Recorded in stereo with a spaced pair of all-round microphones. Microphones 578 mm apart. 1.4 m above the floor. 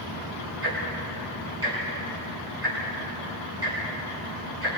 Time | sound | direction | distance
0.6 | ticking | 25° right (ahead or behind) | 9.5 m